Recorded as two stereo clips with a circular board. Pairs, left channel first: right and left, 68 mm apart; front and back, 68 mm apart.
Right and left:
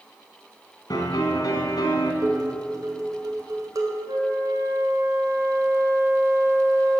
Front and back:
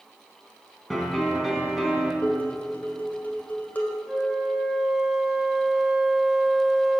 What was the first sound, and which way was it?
A piano, 95° right.